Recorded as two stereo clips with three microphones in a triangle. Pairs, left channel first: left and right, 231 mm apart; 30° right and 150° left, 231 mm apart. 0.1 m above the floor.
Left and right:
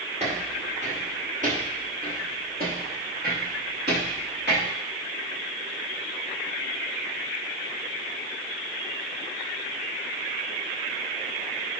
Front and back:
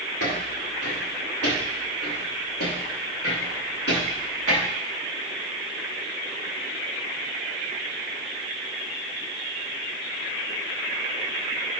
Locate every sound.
0.2 s footsteps: 25° right, 4.5 m; by 4.7 s 50° right, 6 m